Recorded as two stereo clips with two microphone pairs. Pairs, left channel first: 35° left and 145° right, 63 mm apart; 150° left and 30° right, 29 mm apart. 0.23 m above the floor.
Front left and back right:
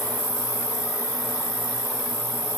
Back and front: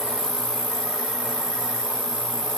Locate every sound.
0.0 s an insect: 15° left, 0.9 m